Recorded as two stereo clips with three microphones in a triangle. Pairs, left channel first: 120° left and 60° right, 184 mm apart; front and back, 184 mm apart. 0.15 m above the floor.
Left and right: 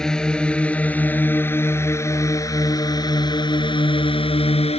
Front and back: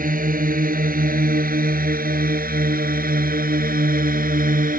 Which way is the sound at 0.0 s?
155° right.